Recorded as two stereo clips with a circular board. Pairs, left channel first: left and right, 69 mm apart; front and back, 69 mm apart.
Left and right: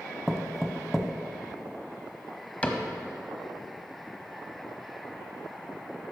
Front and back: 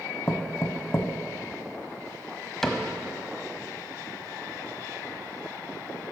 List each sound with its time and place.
0.3 s knocking: straight ahead, 0.8 m
2.6 s a cupboard door: 75° left, 1.0 m